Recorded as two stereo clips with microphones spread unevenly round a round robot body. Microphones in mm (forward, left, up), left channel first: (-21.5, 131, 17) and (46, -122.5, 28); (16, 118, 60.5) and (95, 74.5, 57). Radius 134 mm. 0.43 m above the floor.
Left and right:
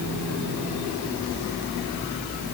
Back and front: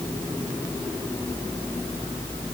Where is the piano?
I don't hear a piano.